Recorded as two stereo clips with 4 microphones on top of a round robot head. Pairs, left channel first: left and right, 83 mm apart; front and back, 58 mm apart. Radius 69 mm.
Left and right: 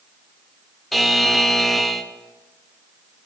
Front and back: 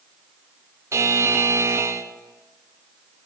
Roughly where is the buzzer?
Behind.